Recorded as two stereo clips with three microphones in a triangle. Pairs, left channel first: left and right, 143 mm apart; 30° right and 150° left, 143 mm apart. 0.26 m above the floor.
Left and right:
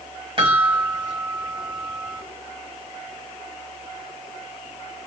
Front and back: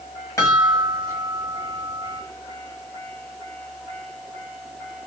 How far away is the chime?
About 1.4 m.